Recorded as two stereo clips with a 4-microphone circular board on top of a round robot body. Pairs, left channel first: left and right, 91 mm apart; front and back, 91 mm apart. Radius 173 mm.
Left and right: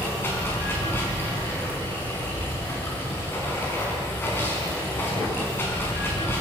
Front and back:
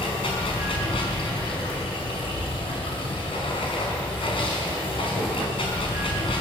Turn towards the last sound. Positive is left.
turn(degrees=25)